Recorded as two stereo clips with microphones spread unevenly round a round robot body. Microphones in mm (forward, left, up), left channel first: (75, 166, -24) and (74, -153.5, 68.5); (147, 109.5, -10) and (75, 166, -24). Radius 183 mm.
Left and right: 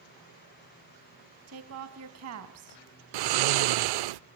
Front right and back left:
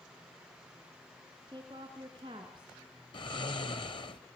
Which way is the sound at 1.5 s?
145° right.